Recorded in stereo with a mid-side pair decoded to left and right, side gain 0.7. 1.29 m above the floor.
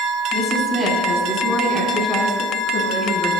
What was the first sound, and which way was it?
A woman speaking, 30° left.